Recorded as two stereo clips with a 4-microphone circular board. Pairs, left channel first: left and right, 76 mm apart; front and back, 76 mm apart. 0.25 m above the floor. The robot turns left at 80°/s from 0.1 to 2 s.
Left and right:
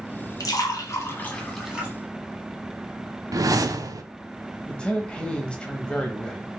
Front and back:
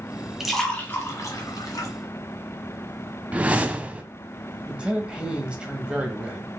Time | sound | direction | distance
0.4 | a splash | 100° left | 1.3 m
3.3 | a whoosh | 110° right | 0.5 m
4.7 | a man speaking | 135° left | 0.9 m